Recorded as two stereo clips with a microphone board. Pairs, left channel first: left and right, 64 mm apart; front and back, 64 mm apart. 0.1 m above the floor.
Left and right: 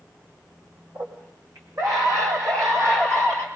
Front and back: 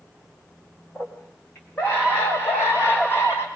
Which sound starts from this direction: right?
A scream, at 0.9 s.